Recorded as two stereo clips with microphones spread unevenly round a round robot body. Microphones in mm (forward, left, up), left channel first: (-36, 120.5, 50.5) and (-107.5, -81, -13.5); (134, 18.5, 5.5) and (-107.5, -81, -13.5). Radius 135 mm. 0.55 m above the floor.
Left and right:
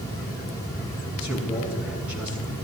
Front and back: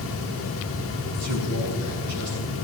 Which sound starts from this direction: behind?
A man speaking, at 1.2 s.